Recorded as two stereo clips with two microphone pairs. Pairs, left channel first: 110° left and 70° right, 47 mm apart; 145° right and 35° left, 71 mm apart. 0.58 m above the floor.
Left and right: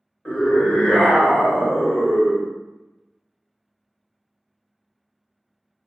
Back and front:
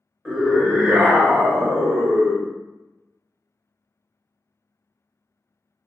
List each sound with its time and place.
0.2 s a scream: 115° left, 1.0 m; by 2.5 s 10° right, 1.2 m